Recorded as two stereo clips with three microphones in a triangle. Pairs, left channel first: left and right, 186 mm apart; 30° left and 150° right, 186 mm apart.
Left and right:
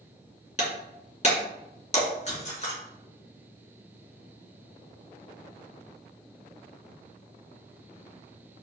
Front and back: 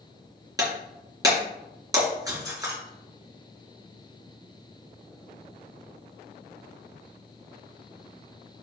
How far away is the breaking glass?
About 3 m.